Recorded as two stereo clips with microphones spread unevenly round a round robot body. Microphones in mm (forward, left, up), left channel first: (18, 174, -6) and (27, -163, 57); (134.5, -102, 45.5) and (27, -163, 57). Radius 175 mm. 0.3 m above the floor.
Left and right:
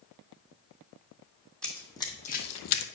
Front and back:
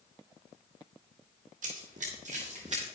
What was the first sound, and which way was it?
Running footsteps, straight behind.